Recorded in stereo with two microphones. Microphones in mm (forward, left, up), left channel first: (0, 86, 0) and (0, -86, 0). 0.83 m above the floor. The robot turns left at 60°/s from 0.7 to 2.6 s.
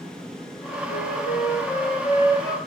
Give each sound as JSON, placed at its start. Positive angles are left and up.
{"t": 0.9, "sound": "a flute", "azimuth_deg": 120, "distance_m": 7.5}